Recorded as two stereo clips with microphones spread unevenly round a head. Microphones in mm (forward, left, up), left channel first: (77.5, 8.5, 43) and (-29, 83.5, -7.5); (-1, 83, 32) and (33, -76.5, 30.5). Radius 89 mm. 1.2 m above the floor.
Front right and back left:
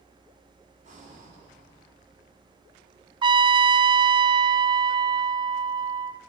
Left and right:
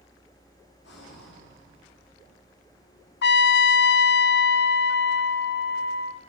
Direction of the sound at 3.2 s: 110° left.